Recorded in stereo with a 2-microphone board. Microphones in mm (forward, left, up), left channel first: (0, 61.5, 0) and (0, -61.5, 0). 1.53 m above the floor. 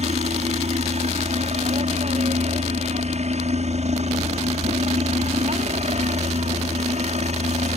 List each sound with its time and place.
0.0 s a helicopter: 65° right (ahead or behind)